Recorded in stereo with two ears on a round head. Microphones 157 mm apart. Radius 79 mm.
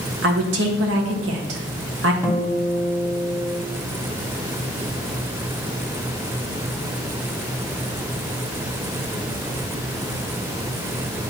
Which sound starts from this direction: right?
A woman speaking, at 0.2 s.